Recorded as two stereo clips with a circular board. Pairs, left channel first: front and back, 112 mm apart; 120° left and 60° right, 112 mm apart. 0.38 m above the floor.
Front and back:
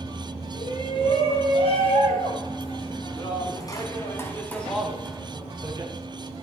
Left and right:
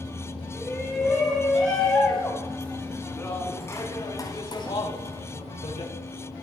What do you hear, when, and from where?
0.5 s a shout: 25° left, 6.5 m; by 5.9 s 125° left, 2.5 m